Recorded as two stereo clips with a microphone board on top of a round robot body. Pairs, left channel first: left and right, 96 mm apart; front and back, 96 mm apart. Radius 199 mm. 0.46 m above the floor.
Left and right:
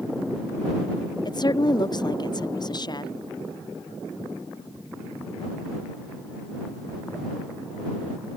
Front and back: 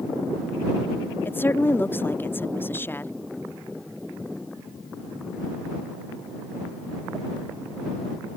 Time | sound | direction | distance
1.2 | a woman speaking | 65° left | ?